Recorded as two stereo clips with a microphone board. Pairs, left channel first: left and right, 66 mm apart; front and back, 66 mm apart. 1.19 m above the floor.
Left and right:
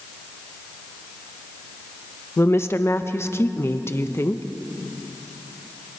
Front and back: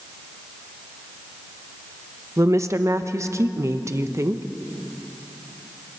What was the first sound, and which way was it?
A woman speaking, 140° left.